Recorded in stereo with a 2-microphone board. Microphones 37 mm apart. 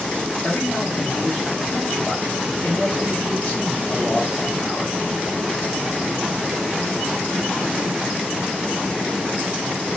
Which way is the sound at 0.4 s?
35° left (ahead or behind).